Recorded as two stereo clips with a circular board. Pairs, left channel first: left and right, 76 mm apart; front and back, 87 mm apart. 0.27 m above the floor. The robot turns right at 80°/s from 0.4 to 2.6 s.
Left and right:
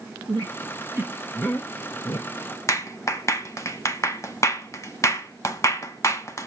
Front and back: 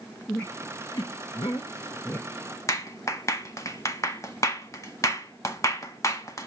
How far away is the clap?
About 1.6 m.